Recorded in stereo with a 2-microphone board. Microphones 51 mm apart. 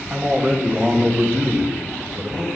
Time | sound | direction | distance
0.1 | a man speaking | 40° right (ahead or behind) | 3 m